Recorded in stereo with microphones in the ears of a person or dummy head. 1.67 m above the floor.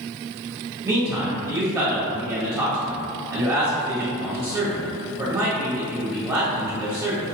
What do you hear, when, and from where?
0.8 s a man speaking: 15° right (ahead or behind), 0.7 m